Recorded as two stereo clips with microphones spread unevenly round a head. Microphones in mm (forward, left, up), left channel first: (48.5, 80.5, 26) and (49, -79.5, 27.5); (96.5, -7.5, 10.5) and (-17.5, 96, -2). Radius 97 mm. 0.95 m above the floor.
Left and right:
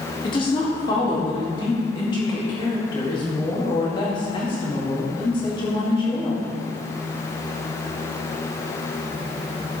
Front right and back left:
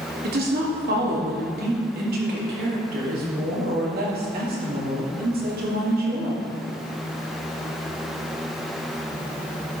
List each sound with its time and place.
0.2 s a woman speaking: 155° left, 1.9 m